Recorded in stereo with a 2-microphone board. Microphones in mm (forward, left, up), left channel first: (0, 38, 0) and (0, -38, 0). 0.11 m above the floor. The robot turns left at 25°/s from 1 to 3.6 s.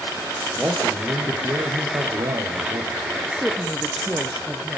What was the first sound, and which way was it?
A man speaking, 25° right.